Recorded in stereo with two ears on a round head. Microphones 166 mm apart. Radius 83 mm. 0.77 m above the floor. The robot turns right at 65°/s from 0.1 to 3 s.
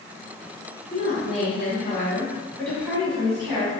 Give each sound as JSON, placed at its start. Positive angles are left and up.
{"t": 0.9, "sound": "a woman speaking", "azimuth_deg": 65, "distance_m": 1.3}